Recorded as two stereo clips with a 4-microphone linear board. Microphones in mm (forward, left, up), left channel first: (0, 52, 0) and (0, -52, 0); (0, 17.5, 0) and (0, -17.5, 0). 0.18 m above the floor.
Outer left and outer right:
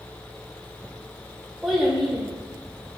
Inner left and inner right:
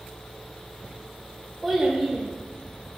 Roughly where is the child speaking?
Centre.